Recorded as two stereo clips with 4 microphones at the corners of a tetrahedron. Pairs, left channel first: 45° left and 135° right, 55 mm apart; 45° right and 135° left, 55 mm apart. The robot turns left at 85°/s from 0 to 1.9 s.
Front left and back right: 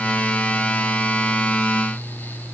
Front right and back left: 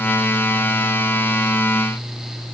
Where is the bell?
I don't hear a bell.